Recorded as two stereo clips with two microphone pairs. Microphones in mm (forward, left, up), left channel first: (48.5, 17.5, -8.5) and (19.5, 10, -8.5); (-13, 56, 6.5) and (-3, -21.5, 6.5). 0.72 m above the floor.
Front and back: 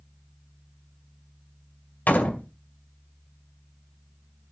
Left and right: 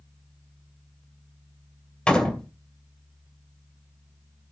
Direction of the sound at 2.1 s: 20° left.